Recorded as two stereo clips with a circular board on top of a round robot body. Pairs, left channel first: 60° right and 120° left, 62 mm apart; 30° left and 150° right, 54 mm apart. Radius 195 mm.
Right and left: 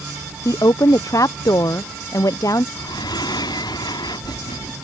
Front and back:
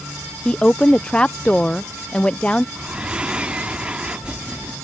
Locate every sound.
0.5 s a woman speaking: 40° right
2.8 s breathing: 75° right